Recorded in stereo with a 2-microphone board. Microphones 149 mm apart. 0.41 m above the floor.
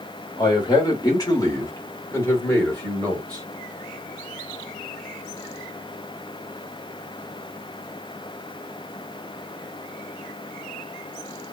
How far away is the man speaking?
About 1.6 m.